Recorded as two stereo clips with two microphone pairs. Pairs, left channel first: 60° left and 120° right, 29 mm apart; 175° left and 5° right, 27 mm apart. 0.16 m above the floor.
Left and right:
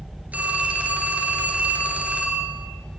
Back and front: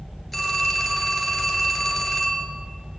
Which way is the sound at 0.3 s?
100° right.